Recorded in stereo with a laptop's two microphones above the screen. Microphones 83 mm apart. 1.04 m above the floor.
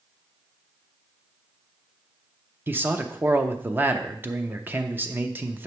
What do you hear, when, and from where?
2.7 s a man speaking: 20° right (ahead or behind), 0.7 m